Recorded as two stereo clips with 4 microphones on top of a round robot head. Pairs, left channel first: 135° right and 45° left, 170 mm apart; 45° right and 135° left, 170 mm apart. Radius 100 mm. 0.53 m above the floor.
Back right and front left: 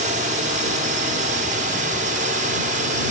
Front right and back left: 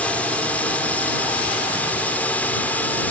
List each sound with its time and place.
0.0 s a drone: 35° left